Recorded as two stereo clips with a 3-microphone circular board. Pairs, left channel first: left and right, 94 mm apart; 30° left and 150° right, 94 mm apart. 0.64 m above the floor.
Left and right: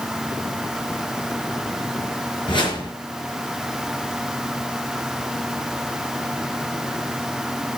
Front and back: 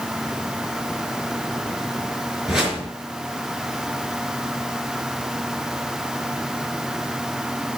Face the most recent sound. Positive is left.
turn(degrees=125)